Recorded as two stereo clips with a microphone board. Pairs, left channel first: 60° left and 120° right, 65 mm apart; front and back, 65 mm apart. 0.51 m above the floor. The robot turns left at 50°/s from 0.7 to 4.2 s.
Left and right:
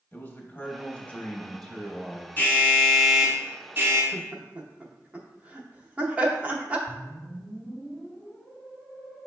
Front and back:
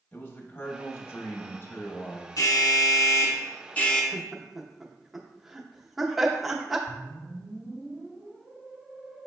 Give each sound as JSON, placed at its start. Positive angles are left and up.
{"t": 0.1, "sound": "a man speaking", "azimuth_deg": 25, "distance_m": 0.8}
{"t": 2.4, "sound": "an alarm", "azimuth_deg": 5, "distance_m": 0.7}
{"t": 4.1, "sound": "laughter", "azimuth_deg": -90, "distance_m": 0.7}
{"t": 6.9, "sound": "a whoosh", "azimuth_deg": 85, "distance_m": 1.2}